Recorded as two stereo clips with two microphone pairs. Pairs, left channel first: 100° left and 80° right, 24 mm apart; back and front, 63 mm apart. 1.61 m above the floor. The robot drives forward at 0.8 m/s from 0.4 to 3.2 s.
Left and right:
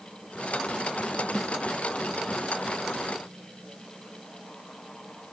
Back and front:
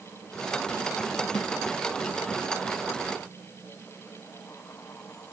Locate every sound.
1.4 s a snare drum: 175° right